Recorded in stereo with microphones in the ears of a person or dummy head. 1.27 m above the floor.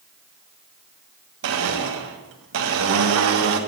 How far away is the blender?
About 1.2 m.